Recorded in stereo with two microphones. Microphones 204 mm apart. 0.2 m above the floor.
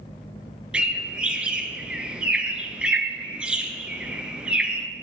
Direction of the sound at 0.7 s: 5° right (ahead or behind).